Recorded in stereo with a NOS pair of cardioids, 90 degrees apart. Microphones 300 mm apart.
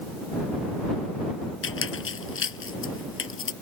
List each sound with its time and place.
1.6 s a squeak: 45° left